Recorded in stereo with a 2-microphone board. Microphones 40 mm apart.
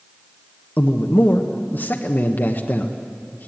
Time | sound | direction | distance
0.8 | a man speaking | 55° left (ahead or behind) | 1.1 m